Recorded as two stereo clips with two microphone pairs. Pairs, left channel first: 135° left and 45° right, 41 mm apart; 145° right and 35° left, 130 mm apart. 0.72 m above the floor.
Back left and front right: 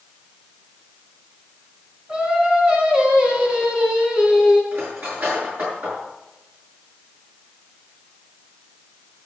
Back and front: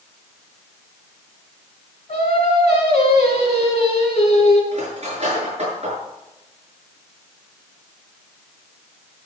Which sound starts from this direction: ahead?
Cutlery clinking, at 4.7 s.